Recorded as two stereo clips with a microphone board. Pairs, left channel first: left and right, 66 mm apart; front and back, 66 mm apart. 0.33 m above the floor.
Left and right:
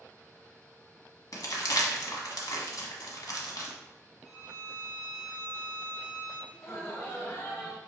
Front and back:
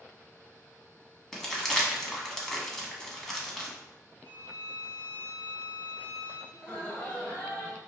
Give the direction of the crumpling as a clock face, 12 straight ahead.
9 o'clock.